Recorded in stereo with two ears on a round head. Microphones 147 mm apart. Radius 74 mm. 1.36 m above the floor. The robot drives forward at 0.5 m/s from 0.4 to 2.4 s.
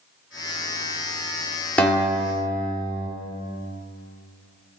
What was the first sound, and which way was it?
A guitar, 10° left (ahead or behind).